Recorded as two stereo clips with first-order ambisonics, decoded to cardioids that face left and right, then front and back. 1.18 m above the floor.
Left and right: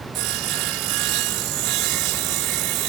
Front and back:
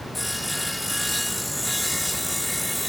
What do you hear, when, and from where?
0.1 s sawing: 85° right